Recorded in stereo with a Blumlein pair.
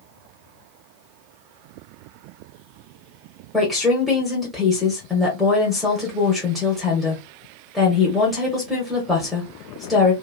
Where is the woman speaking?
Straight ahead, 1.1 m.